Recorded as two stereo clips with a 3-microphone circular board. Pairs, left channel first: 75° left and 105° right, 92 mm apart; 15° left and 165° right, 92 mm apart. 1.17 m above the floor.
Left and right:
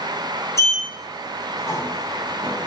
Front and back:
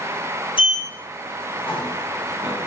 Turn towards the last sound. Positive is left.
turn(degrees=20)